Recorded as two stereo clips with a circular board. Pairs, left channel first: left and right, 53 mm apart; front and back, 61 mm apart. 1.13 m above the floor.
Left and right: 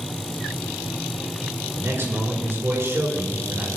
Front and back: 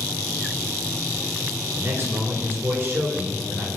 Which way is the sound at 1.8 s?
130° right.